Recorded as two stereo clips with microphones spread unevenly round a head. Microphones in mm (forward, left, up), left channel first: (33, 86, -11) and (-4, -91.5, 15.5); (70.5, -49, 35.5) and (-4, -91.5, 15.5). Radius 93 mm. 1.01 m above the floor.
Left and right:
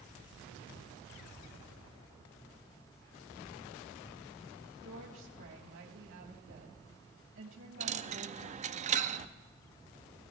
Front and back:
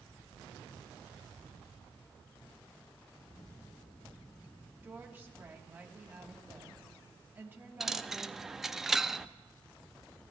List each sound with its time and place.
4.8 s a woman speaking: 85° right, 3 m
7.8 s a dropped coin: 55° right, 0.6 m